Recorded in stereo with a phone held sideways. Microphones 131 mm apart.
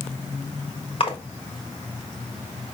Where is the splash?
45° left (ahead or behind), 1.3 m.